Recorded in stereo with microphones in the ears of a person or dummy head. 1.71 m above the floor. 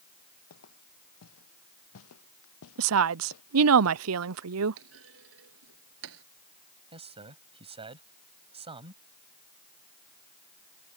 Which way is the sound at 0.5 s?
85° left.